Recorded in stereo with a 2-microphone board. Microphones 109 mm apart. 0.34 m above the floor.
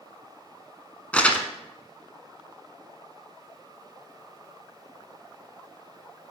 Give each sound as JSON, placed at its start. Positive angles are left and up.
{"t": 1.1, "sound": "crumpling", "side_deg": 10, "distance_m": 0.9}